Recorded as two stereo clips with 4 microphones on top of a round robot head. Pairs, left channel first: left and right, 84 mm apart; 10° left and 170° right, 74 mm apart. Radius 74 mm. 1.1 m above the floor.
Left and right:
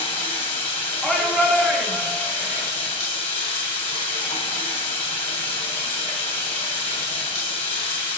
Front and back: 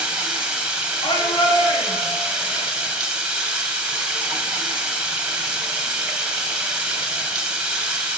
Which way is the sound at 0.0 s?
115° left.